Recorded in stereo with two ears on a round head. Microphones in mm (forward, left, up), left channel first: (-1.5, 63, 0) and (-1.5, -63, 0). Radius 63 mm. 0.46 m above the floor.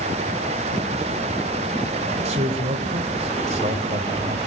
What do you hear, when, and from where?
2.2 s a man speaking: 50° right (ahead or behind), 1.9 m